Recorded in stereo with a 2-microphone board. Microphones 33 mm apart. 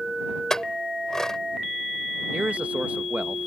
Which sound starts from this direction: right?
A man speaking, at 2.3 s.